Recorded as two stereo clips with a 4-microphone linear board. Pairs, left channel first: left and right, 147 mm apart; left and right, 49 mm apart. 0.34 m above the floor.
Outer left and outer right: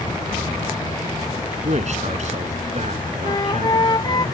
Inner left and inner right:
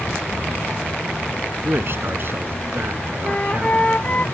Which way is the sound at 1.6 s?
50° right (ahead or behind).